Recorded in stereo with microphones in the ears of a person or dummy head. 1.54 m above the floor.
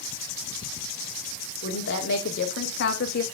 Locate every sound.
1.6 s a woman speaking: 60° left (ahead or behind), 2.5 m